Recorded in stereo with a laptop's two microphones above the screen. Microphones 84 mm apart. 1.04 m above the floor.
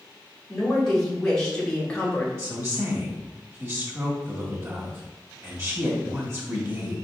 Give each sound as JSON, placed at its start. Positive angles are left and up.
{"t": 0.5, "sound": "a woman speaking", "side_deg": 5, "distance_m": 1.8}
{"t": 2.4, "sound": "a woman speaking", "side_deg": -35, "distance_m": 1.7}